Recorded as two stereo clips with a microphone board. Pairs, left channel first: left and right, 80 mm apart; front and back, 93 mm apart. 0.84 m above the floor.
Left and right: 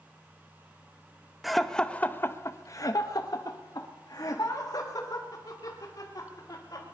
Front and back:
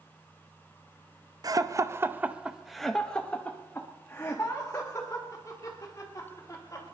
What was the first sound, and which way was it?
Laughter, straight behind.